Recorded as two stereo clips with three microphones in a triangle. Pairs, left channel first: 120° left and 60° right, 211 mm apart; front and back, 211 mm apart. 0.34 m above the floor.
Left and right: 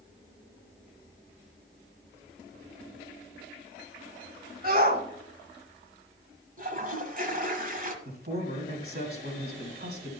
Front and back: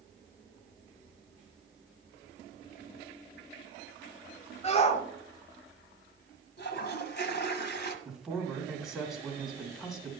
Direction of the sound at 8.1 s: 90° right.